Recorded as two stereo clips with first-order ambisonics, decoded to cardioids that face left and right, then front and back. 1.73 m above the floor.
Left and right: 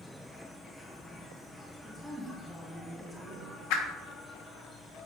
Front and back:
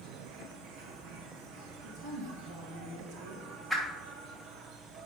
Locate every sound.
0.0 s an insect: 175° left, 1.1 m
1.8 s a woman speaking: straight behind, 2 m
3.7 s a whoosh: 90° left, 1.4 m